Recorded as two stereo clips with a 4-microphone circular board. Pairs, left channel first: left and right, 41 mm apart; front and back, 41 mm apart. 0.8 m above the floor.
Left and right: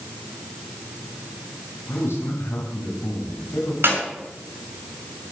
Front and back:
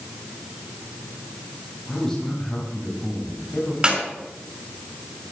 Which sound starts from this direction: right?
A clap, at 3.8 s.